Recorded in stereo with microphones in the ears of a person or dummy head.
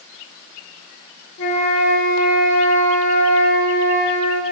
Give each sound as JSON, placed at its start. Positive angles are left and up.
{"t": 1.4, "sound": "a flute", "side_deg": 70, "distance_m": 1.0}